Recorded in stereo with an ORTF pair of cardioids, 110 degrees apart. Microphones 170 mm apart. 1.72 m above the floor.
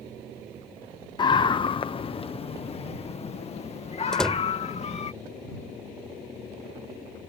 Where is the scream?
25° left; by 5.1 s 35° left.